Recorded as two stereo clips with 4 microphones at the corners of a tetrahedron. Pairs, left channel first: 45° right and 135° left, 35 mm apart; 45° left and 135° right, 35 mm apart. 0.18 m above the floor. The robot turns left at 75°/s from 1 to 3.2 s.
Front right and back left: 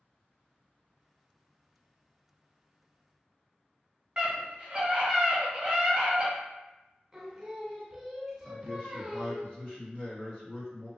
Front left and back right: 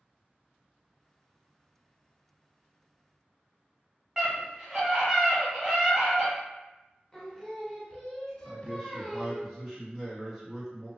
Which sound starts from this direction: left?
Singing, at 7.1 s.